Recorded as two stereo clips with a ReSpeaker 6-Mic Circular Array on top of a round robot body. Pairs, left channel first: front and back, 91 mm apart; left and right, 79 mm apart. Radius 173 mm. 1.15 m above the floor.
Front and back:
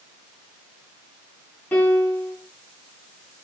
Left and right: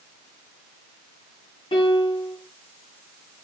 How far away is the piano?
About 3 m.